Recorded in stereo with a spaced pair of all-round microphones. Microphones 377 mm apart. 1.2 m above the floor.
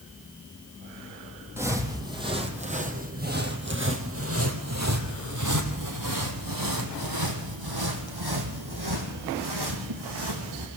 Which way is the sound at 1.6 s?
5° right (ahead or behind).